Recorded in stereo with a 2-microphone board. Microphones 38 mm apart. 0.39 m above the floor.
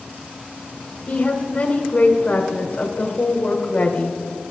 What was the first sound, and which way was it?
A woman speaking, 30° left (ahead or behind).